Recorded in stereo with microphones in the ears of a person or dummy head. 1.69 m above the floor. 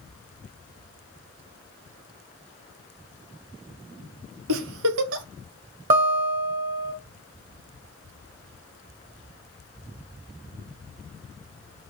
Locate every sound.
4.5 s a giggle: 70° right (ahead or behind), 1.1 m
5.9 s a guitar: 40° right (ahead or behind), 1.9 m